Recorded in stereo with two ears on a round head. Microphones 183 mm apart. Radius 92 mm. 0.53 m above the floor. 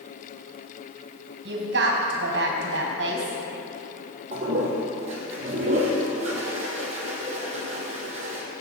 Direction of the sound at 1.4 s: 60° right (ahead or behind).